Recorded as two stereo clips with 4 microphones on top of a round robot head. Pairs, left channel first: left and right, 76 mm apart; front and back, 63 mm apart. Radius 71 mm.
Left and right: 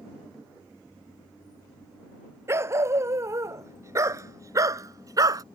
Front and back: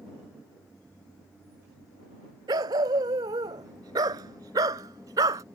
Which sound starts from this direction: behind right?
A dog barking, at 2.5 s.